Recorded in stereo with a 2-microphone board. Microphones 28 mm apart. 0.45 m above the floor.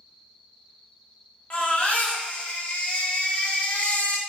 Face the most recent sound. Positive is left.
turn(degrees=50)  # may be behind; listen again after turning